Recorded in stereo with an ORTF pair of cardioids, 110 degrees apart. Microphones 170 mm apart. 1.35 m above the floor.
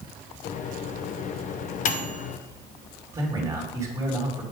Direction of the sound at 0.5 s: 50° left.